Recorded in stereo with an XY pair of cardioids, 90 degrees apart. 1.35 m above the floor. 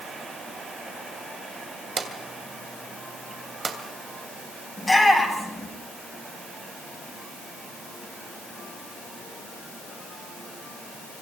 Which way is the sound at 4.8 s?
15° left.